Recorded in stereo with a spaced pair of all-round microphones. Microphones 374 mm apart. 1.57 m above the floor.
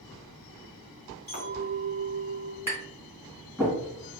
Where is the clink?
50° right (ahead or behind), 1.7 m.